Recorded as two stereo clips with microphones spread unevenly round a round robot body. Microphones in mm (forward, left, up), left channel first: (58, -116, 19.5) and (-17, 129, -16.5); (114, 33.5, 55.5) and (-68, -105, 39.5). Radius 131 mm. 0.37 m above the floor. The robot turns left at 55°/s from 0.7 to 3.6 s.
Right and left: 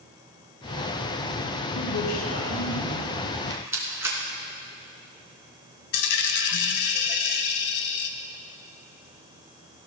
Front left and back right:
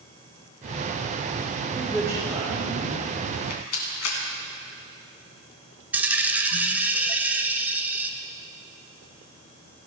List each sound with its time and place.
1.8 s a man speaking: 50° right, 2.0 m; by 3.0 s 120° right, 2.0 m
3.3 s a rattle: 40° left, 2.5 m; by 4.2 s 25° left, 2.5 m
5.9 s a dropped coin: 60° right, 1.0 m